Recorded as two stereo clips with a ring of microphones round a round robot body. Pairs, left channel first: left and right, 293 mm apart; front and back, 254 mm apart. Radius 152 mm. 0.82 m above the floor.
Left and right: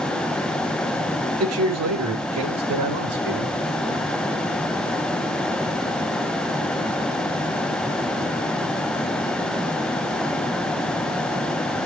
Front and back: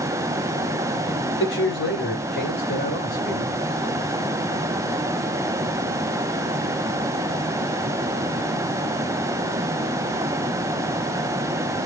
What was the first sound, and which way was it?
A man speaking, 50° right.